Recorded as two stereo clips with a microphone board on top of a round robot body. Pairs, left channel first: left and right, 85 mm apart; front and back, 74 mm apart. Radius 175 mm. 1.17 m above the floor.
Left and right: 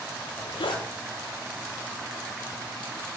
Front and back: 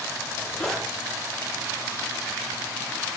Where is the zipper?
80° left, 1.9 m.